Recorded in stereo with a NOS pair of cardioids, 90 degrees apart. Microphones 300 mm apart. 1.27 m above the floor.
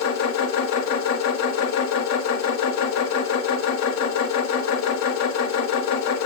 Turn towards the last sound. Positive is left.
turn(degrees=60)